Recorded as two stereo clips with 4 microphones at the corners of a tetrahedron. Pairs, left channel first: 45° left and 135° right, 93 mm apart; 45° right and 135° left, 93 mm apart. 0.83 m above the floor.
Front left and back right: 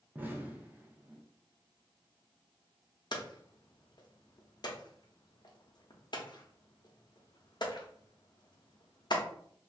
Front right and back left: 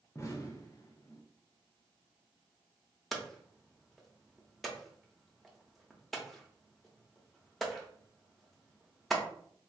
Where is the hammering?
45° left, 0.6 m.